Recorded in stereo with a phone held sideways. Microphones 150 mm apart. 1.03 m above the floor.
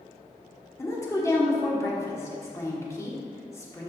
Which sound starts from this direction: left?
A woman speaking, at 0.8 s.